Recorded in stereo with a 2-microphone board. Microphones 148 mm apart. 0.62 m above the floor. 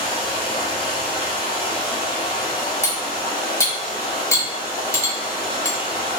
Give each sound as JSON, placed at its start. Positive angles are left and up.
{"t": 0.0, "sound": "running water", "side_deg": 35, "distance_m": 0.8}
{"t": 2.8, "sound": "cutlery clinking", "side_deg": 20, "distance_m": 0.7}